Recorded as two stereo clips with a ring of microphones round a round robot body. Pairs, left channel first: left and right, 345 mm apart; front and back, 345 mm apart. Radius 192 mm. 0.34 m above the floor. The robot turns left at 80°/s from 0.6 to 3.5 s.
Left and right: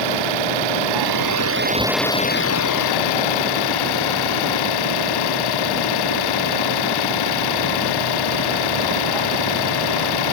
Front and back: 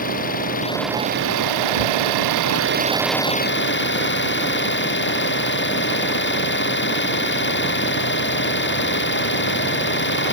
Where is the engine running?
70° right; by 10.3 s 60° left.